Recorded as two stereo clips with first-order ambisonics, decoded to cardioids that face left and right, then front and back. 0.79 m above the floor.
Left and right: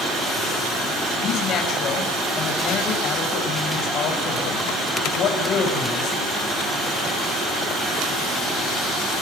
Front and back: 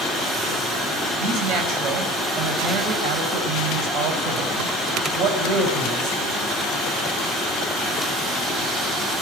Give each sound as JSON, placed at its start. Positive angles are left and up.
{"t": 1.2, "sound": "a man speaking", "azimuth_deg": 140, "distance_m": 5.0}